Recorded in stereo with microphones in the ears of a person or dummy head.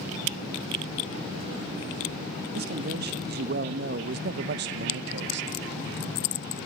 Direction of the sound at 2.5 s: 55° right (ahead or behind).